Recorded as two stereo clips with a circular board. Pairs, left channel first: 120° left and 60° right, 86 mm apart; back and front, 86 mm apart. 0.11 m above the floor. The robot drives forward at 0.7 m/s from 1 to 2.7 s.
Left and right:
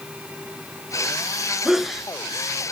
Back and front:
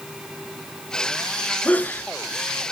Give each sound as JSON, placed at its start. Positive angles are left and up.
{"t": 1.6, "sound": "a sneeze", "azimuth_deg": -135, "distance_m": 1.3}